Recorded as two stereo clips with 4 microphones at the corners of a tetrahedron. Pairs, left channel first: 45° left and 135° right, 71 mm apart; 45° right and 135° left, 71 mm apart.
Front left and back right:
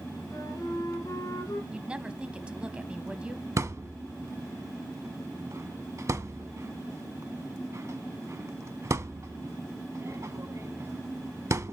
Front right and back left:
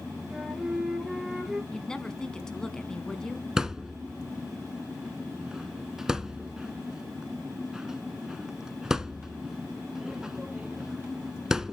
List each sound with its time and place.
0.3 s a flute: 50° left, 2.5 m
1.7 s a woman speaking: 105° right, 1.0 m
3.6 s a thud: 145° right, 0.7 m